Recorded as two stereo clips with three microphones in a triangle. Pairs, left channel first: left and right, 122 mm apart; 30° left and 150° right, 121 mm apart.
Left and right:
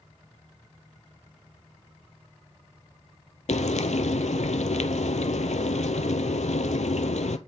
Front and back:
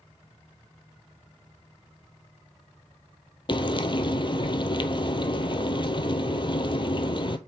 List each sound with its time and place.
3.5 s frying: 75° left, 0.6 m